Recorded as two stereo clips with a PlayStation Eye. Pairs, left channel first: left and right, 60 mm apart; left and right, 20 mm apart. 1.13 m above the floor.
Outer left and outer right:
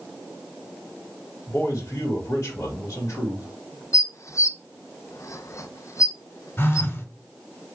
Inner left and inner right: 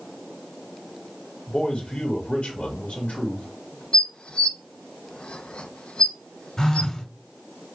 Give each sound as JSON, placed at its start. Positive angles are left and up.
{"t": 1.5, "sound": "a man speaking", "side_deg": 60, "distance_m": 1.9}
{"t": 3.9, "sound": "dishes clattering", "side_deg": 60, "distance_m": 0.5}
{"t": 6.6, "sound": "a phone buzzing", "side_deg": 40, "distance_m": 1.3}